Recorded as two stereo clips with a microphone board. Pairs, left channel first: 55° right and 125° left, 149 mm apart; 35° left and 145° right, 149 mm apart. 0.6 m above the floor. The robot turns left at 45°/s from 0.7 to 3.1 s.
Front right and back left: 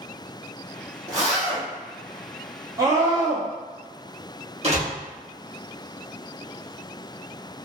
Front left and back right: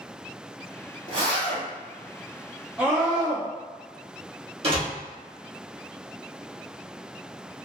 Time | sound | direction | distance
1.1 | a zipper | straight behind | 1.8 m
2.8 | a scream | 140° left | 0.6 m
4.6 | a door slam | 165° left | 1.0 m